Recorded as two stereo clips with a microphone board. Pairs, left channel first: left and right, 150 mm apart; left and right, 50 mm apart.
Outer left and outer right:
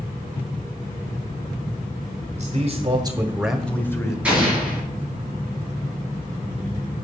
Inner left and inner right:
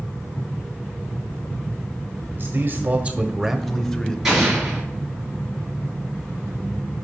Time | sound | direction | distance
2.3 | a man speaking | 50° right (ahead or behind) | 1.3 m
4.2 | an explosion | 10° right (ahead or behind) | 4 m